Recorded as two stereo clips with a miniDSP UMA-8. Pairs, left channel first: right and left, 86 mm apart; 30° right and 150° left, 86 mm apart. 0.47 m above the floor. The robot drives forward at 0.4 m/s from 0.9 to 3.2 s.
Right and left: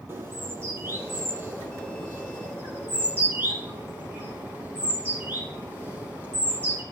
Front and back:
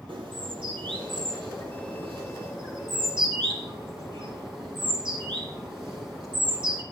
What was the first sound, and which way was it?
A bird, 150° left.